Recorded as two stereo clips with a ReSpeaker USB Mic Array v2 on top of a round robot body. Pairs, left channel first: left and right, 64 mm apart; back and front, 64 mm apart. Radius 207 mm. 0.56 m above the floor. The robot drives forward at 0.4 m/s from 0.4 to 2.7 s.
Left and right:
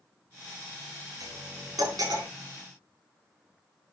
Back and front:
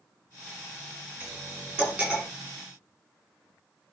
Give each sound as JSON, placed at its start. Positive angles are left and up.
{"t": 1.2, "sound": "cutlery clinking", "azimuth_deg": -70, "distance_m": 7.0}